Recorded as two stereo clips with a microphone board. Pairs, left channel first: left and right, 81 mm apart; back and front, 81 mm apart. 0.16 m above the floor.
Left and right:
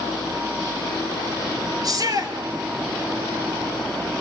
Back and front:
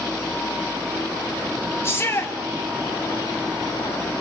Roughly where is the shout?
Behind right.